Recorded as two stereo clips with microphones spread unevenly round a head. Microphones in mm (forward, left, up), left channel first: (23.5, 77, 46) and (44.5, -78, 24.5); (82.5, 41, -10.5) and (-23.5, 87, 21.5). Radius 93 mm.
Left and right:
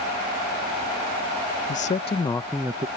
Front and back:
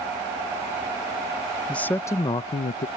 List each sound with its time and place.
1.7 s a man speaking: 55° left; by 2.9 s 25° right